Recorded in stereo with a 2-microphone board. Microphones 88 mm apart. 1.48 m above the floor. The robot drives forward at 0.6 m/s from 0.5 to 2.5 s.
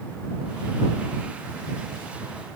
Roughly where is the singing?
I don't hear singing.